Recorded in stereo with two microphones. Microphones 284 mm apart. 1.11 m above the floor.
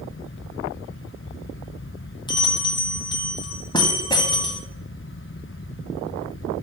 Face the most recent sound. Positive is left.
turn(degrees=15)  # may be behind; listen again after turning